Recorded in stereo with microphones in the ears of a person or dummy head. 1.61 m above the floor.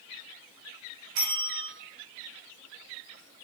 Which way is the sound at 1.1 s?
80° right.